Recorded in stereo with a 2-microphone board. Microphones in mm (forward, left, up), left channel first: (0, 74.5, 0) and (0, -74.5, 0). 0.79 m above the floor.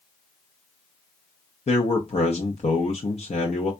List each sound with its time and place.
1.7 s a man speaking: 45° left (ahead or behind), 0.7 m